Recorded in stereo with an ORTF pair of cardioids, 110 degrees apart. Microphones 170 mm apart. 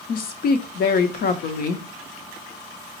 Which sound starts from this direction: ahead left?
A woman speaking, at 0.1 s.